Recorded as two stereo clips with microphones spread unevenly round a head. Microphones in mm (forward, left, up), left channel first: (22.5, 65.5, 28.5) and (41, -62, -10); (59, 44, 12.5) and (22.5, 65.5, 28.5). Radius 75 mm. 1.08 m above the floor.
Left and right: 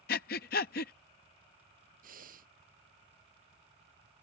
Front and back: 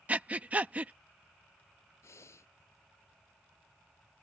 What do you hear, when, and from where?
0.1 s breathing: 90° left
2.0 s breathing: 65° right